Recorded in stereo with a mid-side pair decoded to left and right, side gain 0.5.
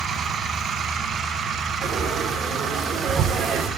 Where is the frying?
55° right, 5 m.